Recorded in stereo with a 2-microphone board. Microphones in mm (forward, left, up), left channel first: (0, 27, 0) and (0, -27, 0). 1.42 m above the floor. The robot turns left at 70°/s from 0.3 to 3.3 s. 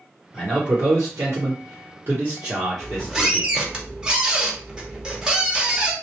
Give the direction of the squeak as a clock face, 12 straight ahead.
12 o'clock.